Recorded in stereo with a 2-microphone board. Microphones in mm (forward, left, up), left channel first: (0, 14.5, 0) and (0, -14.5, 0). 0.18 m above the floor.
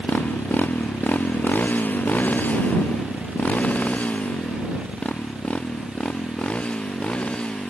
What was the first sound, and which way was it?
A motorcycle, 85° left.